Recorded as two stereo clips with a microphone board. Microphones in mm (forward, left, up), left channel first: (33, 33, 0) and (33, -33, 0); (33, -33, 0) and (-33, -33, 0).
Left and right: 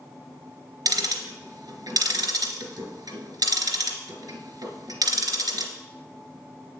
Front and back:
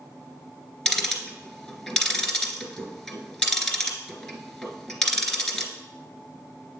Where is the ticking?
80° right, 1.3 m.